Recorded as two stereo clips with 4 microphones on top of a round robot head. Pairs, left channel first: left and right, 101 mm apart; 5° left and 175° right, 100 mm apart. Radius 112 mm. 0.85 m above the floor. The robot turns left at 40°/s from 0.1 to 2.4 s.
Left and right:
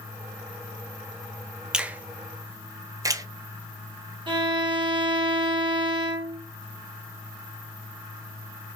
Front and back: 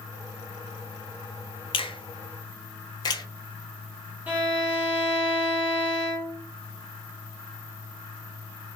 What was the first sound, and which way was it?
A finger snap, 10° right.